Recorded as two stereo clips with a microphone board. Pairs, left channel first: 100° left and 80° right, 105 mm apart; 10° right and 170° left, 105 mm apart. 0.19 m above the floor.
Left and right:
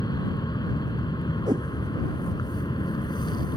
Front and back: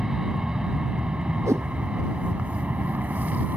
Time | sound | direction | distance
0.0 | an aircraft | 85° left | ?
1.5 | a whoosh | 130° right | ?